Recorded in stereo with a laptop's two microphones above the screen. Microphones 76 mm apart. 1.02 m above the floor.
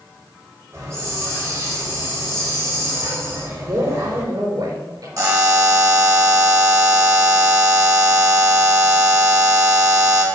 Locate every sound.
0.7 s a hiss: 40° right (ahead or behind), 4 m
3.6 s a man speaking: 60° right (ahead or behind), 3.5 m
5.2 s a buzzer: 45° right (ahead or behind), 1.3 m